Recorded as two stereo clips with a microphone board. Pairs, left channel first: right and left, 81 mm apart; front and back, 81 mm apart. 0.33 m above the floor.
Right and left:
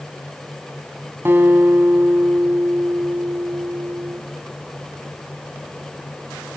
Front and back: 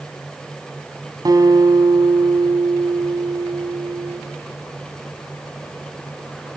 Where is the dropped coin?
No dropped coin in this recording.